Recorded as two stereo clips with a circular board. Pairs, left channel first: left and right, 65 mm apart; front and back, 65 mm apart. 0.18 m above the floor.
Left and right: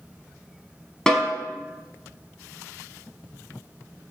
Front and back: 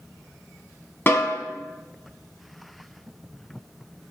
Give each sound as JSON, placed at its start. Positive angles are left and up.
{"t": 1.1, "sound": "a snare drum", "azimuth_deg": 20, "distance_m": 0.5}